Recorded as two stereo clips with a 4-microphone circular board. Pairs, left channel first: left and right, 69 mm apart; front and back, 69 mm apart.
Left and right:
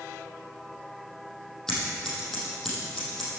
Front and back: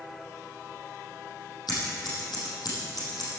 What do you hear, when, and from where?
1.7 s scissors: 10° left, 5.5 m